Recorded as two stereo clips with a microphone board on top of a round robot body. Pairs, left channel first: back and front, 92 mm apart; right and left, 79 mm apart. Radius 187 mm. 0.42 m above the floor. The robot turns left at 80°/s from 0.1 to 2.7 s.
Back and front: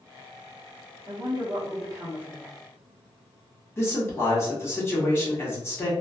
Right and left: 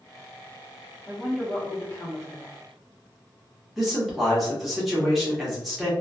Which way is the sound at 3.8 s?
175° left.